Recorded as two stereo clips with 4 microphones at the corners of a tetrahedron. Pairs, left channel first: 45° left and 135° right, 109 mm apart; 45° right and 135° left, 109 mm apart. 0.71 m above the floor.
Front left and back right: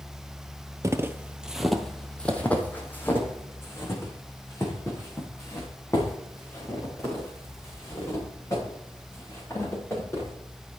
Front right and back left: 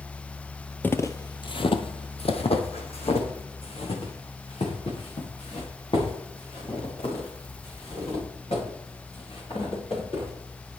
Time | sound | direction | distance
0.8 | footsteps | 105° right | 0.8 m